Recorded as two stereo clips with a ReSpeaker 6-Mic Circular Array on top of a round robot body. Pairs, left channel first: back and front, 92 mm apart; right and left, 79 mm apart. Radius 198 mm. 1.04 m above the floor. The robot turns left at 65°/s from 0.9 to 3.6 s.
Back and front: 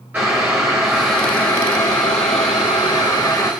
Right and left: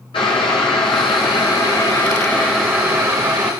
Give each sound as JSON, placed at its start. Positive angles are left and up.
{"t": 0.1, "sound": "boiling", "azimuth_deg": -70, "distance_m": 1.0}